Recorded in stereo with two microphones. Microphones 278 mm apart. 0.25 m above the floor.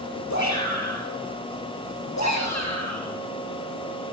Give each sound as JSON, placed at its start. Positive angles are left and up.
{"t": 0.3, "sound": "a shout", "side_deg": 75, "distance_m": 6.0}